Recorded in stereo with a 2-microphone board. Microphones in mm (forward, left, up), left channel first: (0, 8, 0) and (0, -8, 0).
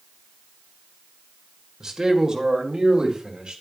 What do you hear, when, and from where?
1.8 s a man speaking: 35° right (ahead or behind), 1.8 m; by 3.6 s 55° right (ahead or behind), 2.5 m